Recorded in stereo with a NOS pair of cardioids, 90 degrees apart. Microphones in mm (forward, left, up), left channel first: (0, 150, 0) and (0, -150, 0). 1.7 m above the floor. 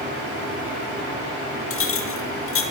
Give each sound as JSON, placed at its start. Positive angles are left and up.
{"t": 1.7, "sound": "a clink", "azimuth_deg": 50, "distance_m": 2.5}